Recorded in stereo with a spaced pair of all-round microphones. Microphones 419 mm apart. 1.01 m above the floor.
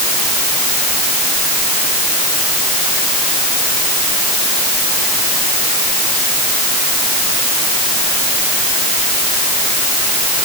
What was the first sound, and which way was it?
Only background noise.